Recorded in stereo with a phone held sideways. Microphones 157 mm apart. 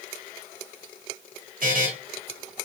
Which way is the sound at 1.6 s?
65° right (ahead or behind).